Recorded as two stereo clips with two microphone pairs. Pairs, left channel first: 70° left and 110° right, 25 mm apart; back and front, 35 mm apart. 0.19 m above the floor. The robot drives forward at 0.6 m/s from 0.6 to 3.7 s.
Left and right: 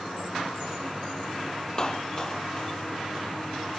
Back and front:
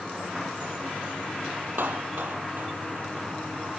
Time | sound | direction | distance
1.8 | a clap | 10° left | ?